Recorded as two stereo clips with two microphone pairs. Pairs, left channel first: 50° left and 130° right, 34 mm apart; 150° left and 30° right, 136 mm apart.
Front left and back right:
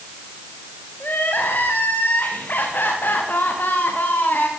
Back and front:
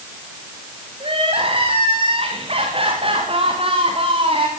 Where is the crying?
20° left, 6 m.